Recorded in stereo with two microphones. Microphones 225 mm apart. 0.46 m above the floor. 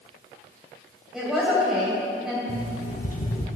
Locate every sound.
1.1 s a woman speaking: centre (ahead or behind), 3 m
2.5 s an alarm clock: 35° left (ahead or behind), 1.0 m